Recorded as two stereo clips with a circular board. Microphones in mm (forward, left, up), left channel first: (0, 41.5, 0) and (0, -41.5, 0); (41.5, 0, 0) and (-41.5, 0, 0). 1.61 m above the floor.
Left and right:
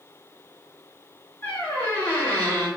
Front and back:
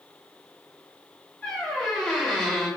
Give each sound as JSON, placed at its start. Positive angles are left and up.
{"t": 1.4, "sound": "a squeak", "azimuth_deg": 55, "distance_m": 2.0}